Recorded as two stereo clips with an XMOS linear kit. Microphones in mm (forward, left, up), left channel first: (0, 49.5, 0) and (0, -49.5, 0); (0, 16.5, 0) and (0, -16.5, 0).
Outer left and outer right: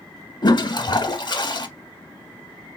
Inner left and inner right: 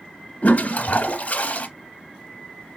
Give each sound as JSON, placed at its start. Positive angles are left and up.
{"t": 0.4, "sound": "a toilet flushing", "side_deg": 50, "distance_m": 0.6}